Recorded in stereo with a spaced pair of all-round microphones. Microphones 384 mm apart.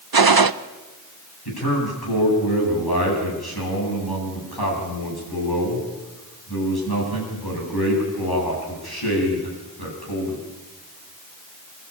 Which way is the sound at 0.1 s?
65° right (ahead or behind).